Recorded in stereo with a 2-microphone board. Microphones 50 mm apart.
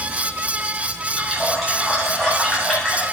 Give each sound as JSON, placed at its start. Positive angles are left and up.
{"t": 1.2, "sound": "a running tap", "side_deg": 0, "distance_m": 8.0}